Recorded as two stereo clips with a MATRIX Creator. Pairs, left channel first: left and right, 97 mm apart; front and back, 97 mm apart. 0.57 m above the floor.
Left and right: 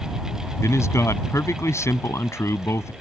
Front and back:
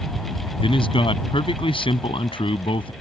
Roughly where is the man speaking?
Ahead left.